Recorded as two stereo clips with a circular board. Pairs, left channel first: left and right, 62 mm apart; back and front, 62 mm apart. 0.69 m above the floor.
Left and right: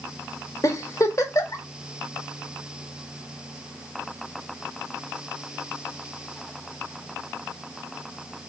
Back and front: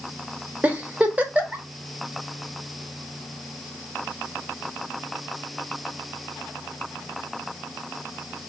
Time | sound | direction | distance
0.6 | a giggle | 65° left | 0.6 m